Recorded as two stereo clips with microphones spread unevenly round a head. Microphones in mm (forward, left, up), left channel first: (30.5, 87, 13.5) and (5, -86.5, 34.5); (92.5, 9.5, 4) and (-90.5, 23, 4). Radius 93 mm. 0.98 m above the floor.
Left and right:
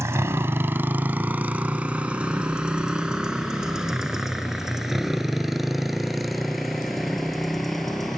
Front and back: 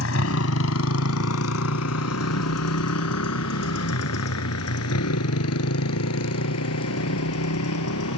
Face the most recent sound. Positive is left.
turn(degrees=-10)